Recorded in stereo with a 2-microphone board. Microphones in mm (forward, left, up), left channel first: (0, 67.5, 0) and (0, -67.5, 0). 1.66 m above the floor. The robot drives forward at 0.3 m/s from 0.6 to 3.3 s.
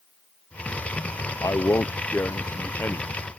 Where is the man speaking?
25° left (ahead or behind); by 3.3 s 15° left (ahead or behind).